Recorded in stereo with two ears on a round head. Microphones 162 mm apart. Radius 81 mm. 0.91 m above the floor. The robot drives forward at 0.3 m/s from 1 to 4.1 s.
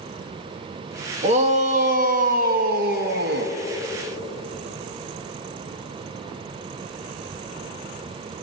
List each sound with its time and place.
1.2 s a shout: 35° right (ahead or behind), 1.1 m; by 3.5 s 60° right (ahead or behind), 0.8 m